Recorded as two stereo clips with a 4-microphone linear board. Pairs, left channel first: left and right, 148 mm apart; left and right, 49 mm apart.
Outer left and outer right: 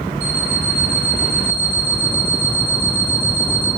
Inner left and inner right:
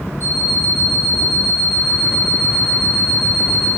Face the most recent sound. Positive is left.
turn(degrees=55)  # may be behind; listen again after turning